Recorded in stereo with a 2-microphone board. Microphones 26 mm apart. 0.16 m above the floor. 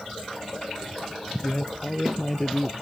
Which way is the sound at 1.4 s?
15° left (ahead or behind).